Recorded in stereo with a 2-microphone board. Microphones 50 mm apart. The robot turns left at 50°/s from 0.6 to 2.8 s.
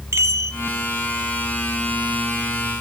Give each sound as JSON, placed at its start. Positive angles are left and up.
{"t": 0.1, "sound": "a chime", "side_deg": -70, "distance_m": 1.9}